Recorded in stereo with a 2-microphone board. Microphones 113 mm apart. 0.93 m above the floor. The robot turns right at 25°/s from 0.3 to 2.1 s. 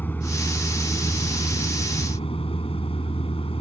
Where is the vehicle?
15° left; by 3.6 s 60° left.